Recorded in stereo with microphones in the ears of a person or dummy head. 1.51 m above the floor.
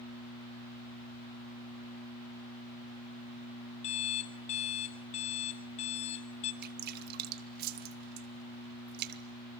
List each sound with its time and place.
3.8 s an alarm clock: 40° left (ahead or behind), 2 m
6.6 s dripping: 55° right (ahead or behind), 1.7 m